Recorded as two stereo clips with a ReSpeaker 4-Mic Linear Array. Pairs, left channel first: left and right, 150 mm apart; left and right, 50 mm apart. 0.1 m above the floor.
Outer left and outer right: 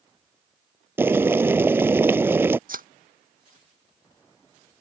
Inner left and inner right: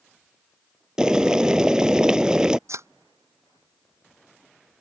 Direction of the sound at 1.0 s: 15° right (ahead or behind).